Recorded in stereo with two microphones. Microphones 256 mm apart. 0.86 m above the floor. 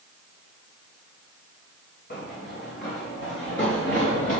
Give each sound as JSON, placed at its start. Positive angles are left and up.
{"t": 2.1, "sound": "running footsteps", "side_deg": 35, "distance_m": 2.5}